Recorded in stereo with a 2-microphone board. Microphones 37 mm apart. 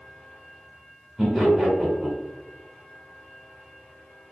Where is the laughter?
10° right (ahead or behind), 1.0 m.